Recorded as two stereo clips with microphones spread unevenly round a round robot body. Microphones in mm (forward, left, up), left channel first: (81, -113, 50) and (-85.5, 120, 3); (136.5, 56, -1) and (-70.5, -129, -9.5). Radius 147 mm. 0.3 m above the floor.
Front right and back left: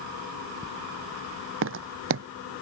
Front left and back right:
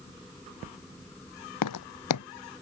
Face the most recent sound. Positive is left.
turn(degrees=75)